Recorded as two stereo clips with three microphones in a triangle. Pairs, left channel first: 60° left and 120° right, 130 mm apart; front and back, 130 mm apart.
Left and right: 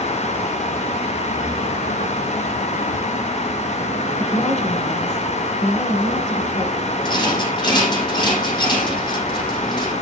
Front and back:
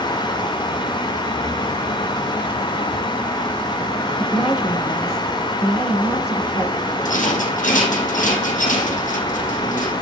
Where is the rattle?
5° left, 5 m.